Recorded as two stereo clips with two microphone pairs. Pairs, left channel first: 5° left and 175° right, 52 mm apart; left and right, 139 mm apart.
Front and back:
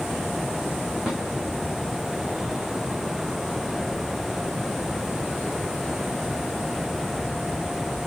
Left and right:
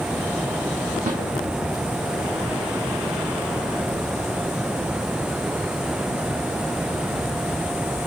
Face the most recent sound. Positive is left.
turn(degrees=-95)